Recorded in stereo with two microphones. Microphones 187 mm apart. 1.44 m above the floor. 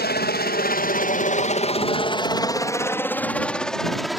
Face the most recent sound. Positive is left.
turn(degrees=0)  # may be behind; listen again after turning